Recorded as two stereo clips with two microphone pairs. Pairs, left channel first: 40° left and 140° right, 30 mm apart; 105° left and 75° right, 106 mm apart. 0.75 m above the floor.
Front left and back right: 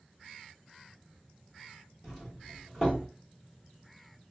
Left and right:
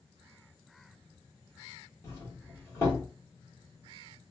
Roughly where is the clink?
No clink in this recording.